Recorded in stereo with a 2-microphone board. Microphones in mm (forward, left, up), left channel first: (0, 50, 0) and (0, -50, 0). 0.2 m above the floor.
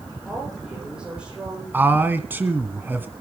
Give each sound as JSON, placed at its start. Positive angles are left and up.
{"t": 0.2, "sound": "a woman speaking", "side_deg": -5, "distance_m": 8.0}
{"t": 1.7, "sound": "a man speaking", "side_deg": -20, "distance_m": 1.5}